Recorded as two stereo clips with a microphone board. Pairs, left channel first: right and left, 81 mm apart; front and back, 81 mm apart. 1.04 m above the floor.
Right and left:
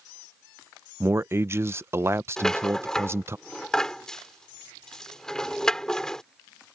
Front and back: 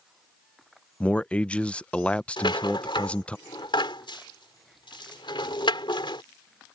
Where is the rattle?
10° right.